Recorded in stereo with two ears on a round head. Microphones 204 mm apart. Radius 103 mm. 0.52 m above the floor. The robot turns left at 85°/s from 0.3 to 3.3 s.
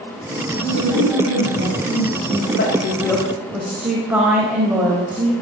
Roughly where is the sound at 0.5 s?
Ahead right.